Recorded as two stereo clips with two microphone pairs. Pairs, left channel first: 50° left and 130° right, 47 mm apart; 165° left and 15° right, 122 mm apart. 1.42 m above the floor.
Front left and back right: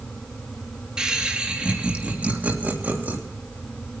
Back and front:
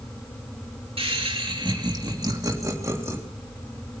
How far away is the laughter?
About 2.5 m.